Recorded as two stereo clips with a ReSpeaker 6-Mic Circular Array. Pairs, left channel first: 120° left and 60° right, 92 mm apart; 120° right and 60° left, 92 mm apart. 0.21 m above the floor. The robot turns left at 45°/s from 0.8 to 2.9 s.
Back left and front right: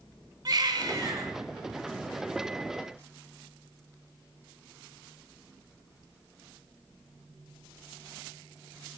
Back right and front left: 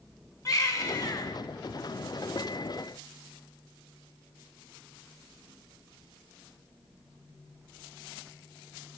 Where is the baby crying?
85° right, 1.1 m; by 1.3 s 105° right, 1.1 m.